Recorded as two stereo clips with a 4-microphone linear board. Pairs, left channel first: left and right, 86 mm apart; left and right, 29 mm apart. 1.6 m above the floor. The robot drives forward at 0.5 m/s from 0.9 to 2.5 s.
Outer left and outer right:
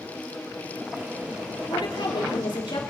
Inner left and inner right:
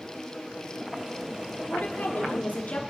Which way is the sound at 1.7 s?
75° left (ahead or behind).